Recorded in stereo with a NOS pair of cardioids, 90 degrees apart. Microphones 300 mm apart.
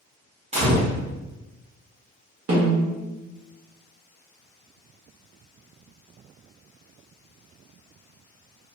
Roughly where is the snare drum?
Ahead right.